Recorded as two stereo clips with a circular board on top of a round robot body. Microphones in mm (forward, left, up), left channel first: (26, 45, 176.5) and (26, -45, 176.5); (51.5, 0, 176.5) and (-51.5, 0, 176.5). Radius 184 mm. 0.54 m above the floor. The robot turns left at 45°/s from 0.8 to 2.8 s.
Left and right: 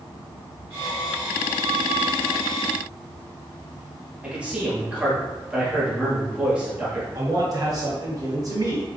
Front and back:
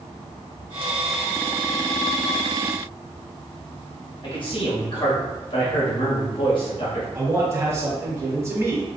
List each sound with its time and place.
4.2 s a man speaking: 15° right, 1.5 m
7.2 s a man speaking: 125° right, 1.4 m